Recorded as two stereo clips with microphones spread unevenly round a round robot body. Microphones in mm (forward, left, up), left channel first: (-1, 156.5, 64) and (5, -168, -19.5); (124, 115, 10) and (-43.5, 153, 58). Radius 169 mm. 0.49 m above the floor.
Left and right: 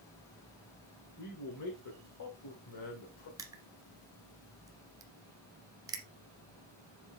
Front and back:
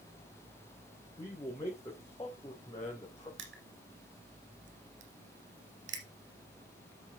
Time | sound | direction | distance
1.2 | a man speaking | 50° left | 3 m
3.4 | crushing | 170° right | 1.3 m